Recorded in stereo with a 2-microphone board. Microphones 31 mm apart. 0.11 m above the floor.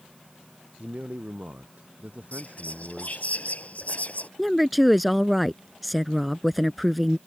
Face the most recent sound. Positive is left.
turn(degrees=0)  # may be behind; listen again after turning